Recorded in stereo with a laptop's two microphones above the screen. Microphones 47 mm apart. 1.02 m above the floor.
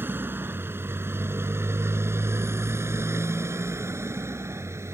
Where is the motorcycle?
50° right (ahead or behind); by 5.0 s 85° right.